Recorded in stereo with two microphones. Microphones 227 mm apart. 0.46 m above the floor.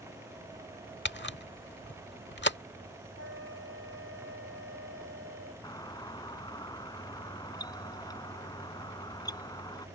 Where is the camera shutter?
50° left (ahead or behind).